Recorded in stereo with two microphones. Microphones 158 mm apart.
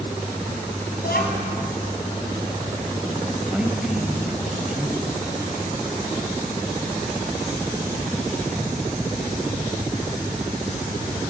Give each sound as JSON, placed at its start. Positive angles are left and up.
{"t": 1.0, "sound": "a child speaking", "side_deg": 85, "distance_m": 5.5}
{"t": 3.5, "sound": "a man speaking", "side_deg": -5, "distance_m": 5.5}